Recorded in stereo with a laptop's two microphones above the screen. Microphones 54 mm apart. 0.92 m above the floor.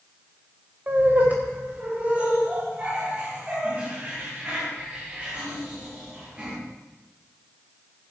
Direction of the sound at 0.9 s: 30° right (ahead or behind).